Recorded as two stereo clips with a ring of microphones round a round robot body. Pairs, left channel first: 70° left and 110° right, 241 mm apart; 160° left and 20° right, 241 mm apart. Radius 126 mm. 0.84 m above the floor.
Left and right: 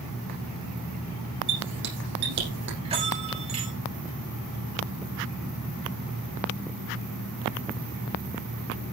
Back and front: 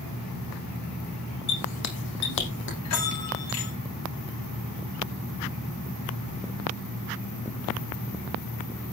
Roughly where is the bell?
Behind.